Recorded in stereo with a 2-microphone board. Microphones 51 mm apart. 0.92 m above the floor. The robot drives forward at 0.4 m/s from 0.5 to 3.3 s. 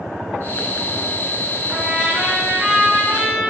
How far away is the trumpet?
About 2.5 m.